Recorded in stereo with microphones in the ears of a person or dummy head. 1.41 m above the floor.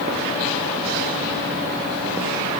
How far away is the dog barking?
No dog barking in this recording.